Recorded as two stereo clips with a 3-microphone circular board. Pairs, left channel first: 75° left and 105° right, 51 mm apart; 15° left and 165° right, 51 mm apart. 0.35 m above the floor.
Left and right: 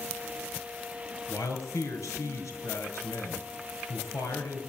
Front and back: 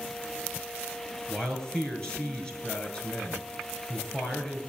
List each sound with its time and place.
1.3 s a man speaking: 85° left, 5 m